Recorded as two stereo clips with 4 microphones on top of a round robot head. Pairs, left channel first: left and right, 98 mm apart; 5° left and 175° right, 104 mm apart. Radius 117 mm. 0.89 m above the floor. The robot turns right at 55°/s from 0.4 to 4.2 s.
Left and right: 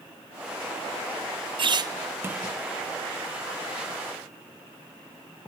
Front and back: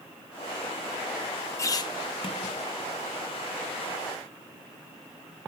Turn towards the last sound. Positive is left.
turn(degrees=85)